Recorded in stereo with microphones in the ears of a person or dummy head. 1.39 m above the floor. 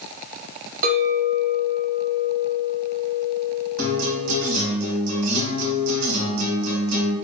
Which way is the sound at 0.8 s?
50° right (ahead or behind).